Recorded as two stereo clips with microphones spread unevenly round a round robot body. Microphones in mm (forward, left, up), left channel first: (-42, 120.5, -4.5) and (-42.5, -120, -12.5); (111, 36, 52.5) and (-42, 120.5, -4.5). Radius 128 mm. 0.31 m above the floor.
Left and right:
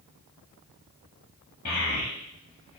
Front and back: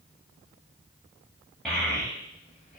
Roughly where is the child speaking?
Left.